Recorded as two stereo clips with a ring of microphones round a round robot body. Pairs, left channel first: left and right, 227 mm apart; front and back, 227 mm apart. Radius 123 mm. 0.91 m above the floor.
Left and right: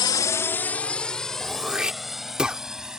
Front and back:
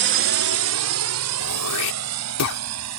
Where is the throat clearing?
5° right.